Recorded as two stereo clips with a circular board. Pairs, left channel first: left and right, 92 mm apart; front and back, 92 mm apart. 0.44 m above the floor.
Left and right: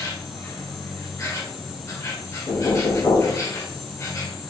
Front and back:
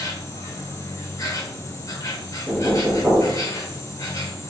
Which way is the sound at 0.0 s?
45° left.